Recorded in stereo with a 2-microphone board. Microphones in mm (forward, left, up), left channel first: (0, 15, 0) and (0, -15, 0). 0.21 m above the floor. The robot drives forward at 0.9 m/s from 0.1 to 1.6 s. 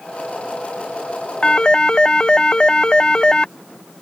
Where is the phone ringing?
35° left (ahead or behind); by 3.5 s 30° left (ahead or behind).